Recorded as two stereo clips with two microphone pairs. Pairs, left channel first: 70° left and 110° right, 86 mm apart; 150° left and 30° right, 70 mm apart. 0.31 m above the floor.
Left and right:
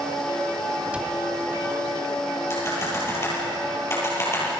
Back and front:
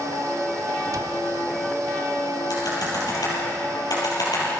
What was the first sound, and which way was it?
A cupboard door, 35° right.